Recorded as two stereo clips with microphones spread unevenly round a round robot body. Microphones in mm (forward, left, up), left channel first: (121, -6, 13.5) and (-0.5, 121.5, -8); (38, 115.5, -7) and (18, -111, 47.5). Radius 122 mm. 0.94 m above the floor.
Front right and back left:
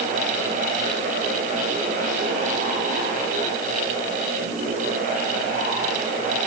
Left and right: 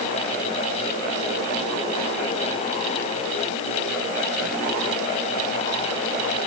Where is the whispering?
I don't hear whispering.